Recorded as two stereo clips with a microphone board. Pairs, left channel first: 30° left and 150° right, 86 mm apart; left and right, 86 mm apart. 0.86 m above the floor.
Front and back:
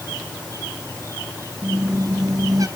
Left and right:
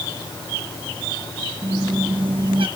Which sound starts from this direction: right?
A squeak, at 1.6 s.